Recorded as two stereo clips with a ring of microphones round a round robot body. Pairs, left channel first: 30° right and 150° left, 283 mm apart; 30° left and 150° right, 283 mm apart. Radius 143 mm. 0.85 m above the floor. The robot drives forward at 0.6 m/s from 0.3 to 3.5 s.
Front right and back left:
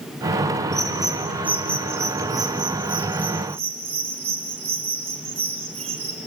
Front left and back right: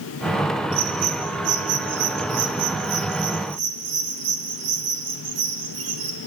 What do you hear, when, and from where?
0.7 s a bird: 120° right, 3 m; by 6.2 s 140° right, 4 m